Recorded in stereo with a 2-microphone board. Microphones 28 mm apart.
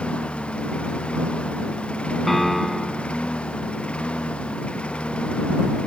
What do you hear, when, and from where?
0.0 s a lawn mower: 45° left (ahead or behind)
2.3 s a piano: 5° left (ahead or behind)